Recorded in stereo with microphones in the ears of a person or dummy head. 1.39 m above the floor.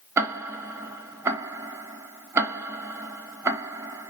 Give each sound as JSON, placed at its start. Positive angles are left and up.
{"t": 0.2, "sound": "ticking", "side_deg": -15, "distance_m": 0.6}